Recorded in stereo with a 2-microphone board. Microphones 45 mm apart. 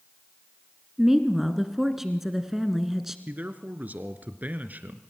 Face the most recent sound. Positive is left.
turn(degrees=-40)  # may be behind; listen again after turning